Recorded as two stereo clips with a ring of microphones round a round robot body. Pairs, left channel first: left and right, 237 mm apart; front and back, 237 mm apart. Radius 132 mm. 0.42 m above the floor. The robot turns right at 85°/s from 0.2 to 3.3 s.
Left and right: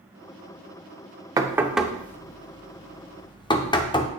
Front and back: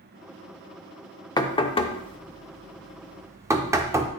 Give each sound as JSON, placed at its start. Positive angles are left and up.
{"t": 1.4, "sound": "knocking", "azimuth_deg": -40, "distance_m": 0.6}